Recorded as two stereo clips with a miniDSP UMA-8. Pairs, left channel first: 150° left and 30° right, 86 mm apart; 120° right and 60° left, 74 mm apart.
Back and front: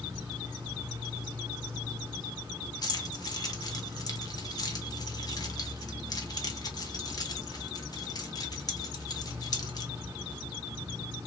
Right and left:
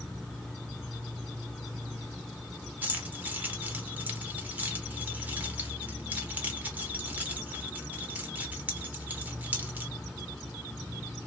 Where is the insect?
45° right, 0.9 m.